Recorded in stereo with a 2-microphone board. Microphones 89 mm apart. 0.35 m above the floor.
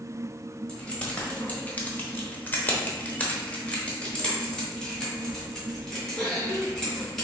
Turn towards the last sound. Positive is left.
turn(degrees=5)  # may be behind; listen again after turning